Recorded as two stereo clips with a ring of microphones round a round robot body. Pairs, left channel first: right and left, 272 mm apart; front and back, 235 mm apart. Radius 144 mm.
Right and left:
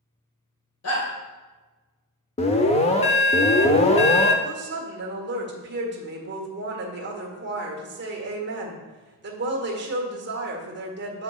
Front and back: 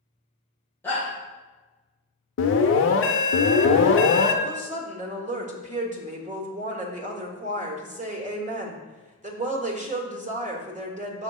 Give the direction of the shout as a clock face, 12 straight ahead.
3 o'clock.